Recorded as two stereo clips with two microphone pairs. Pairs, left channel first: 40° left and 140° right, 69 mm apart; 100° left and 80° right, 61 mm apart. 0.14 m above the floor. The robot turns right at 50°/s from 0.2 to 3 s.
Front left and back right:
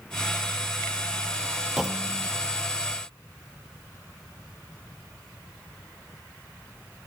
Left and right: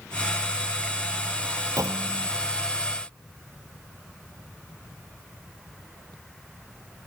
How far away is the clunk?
About 1.5 m.